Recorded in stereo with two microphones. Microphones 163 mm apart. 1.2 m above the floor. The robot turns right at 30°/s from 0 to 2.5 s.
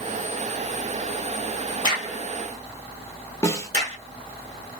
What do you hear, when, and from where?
1.8 s a crack: 25° right (ahead or behind), 1.6 m; by 4.0 s 45° right (ahead or behind), 1.6 m
3.4 s a snare drum: 20° left (ahead or behind), 0.9 m